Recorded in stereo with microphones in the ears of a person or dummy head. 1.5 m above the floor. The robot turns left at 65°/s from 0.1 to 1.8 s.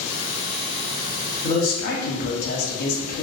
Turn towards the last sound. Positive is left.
turn(degrees=55)  # may be behind; listen again after turning